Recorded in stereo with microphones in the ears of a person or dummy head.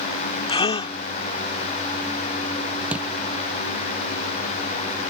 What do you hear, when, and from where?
0.5 s a gasp: 30° left (ahead or behind)
2.9 s a thud: 5° right (ahead or behind)